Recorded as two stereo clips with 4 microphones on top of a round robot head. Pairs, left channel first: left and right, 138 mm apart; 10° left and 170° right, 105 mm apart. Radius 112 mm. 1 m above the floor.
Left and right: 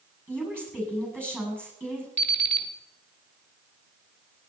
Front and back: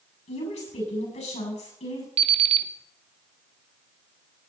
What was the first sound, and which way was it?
A woman speaking, 10° left.